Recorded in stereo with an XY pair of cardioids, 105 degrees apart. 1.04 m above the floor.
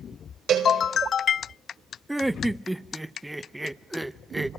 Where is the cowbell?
65° right, 4.5 m.